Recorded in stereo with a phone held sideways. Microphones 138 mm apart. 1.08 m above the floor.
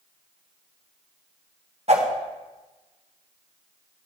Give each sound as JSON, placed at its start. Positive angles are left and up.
{"t": 1.9, "sound": "a whoosh", "side_deg": -55, "distance_m": 1.4}